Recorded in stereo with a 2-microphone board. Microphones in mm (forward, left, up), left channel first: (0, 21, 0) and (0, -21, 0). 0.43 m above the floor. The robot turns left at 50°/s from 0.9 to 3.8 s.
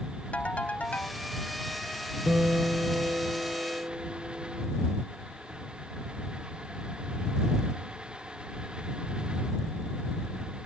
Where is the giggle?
No giggle in this recording.